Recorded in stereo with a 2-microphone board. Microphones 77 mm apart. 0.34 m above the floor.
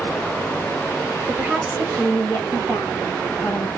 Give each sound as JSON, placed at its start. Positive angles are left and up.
{"t": 1.3, "sound": "a woman speaking", "side_deg": -10, "distance_m": 1.4}